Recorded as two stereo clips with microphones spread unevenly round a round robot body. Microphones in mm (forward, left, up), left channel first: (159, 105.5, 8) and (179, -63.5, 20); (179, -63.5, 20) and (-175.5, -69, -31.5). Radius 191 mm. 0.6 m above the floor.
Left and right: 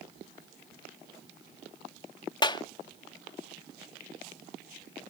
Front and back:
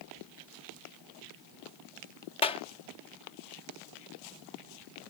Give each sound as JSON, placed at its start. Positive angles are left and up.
{"t": 2.4, "sound": "a clap", "azimuth_deg": 80}